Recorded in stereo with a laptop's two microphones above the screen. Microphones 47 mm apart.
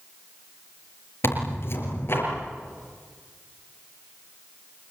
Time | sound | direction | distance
1.2 | tearing paper | 60° left (ahead or behind) | 5.5 m